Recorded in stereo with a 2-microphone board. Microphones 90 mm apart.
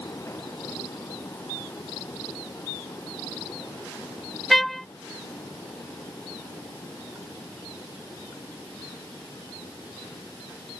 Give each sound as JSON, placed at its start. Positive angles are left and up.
{"t": 4.5, "sound": "a trumpet", "side_deg": 0}